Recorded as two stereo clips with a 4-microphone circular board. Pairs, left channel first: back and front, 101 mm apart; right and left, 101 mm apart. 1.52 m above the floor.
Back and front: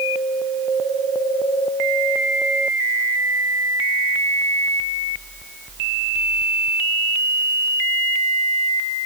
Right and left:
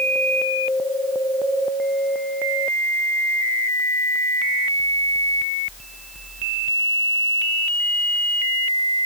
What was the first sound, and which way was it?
Only background noise.